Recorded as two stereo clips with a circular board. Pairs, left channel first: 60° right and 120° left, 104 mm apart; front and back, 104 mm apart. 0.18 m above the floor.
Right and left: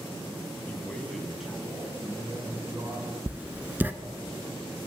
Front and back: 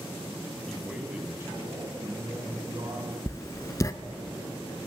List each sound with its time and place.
0.7 s a man speaking: 85° right, 1.0 m; by 3.2 s 170° left, 1.8 m
3.3 s writing: 50° left, 0.6 m